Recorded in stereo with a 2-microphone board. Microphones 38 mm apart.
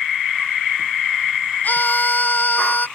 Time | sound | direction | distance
1.6 | a scream | 55° left (ahead or behind) | ?